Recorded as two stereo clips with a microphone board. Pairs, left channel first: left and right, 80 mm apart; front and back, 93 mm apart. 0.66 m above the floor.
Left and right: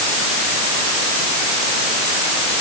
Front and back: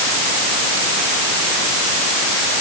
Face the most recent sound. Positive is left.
No sound to turn to.